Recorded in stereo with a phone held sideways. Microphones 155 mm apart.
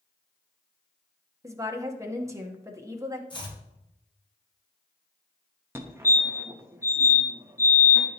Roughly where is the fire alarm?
Centre.